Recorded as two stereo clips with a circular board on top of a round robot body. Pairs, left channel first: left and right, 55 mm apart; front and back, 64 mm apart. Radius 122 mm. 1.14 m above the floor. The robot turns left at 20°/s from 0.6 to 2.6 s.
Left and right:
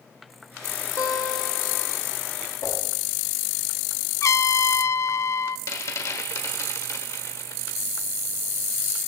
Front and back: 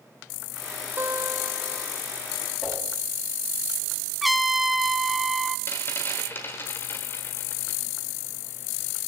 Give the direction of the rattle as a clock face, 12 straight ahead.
10 o'clock.